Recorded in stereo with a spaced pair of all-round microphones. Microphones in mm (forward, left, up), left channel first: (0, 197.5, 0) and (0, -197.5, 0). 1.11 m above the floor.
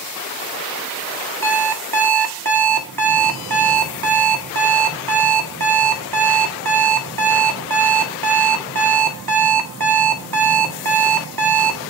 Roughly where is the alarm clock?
Right.